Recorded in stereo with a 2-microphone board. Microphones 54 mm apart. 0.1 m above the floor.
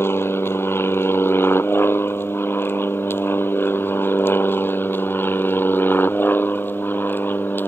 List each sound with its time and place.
0.0 s an aircraft: 45° left (ahead or behind); by 7.7 s 40° left (ahead or behind)